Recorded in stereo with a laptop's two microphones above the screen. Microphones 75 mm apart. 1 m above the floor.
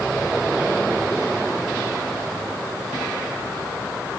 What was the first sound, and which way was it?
Only background noise.